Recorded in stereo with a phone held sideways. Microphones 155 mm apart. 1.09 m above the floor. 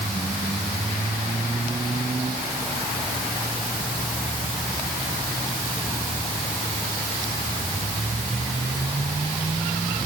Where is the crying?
No crying in this recording.